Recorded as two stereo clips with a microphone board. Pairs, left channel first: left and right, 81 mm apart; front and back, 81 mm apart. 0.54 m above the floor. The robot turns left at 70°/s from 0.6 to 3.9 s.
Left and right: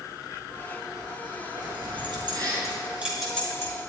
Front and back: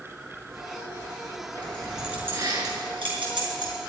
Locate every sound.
1.6 s keys jangling: 65° right, 6 m; by 3.7 s 145° left, 6 m